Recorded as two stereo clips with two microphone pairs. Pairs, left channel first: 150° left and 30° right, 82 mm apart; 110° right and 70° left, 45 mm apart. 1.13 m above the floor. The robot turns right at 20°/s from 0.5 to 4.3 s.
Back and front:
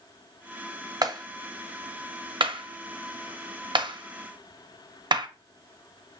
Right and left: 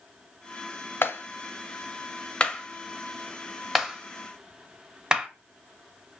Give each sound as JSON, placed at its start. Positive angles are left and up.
{"t": 1.0, "sound": "a clap", "azimuth_deg": -75, "distance_m": 0.7}